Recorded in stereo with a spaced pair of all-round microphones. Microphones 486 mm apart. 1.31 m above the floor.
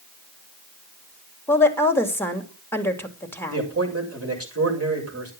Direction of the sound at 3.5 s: 30° right (ahead or behind).